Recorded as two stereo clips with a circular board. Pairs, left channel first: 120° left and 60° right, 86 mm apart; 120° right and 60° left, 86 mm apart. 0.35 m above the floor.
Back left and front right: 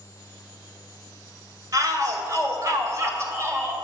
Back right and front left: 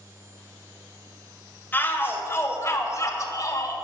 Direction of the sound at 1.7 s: 65° right.